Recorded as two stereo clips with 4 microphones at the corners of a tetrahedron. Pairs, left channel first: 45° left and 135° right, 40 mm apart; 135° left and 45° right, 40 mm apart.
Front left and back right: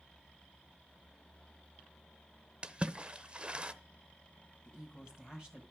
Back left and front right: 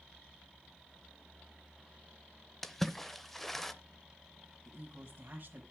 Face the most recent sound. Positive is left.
turn(degrees=-70)